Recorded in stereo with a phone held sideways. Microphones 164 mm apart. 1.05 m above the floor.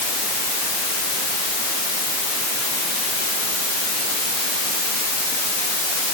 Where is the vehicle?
No vehicle in this recording.